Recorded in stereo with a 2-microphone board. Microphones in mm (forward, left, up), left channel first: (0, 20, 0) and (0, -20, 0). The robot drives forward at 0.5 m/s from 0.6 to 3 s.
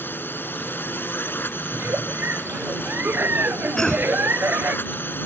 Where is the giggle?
70° right (ahead or behind); by 4.8 s 60° right (ahead or behind).